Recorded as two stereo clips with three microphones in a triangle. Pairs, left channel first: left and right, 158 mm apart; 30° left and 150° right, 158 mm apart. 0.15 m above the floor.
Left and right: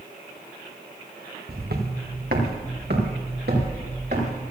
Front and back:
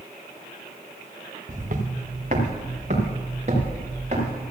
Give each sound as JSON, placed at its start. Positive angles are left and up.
{"t": 1.5, "sound": "footsteps", "azimuth_deg": -110, "distance_m": 2.0}